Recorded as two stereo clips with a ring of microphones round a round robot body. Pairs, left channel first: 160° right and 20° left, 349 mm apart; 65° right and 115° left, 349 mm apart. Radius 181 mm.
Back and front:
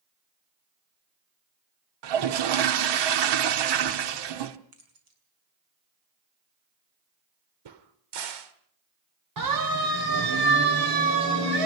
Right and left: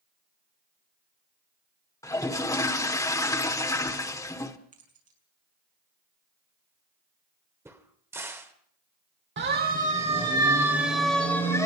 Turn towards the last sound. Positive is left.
turn(degrees=15)